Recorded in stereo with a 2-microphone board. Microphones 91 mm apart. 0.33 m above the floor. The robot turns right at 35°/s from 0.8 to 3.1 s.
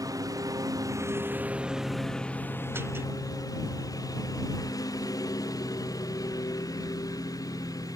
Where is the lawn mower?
40° right; by 8.0 s 40° left.